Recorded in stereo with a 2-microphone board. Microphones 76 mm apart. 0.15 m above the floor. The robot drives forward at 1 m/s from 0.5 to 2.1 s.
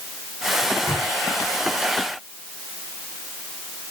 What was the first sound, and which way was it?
A microwave, 35° left (ahead or behind).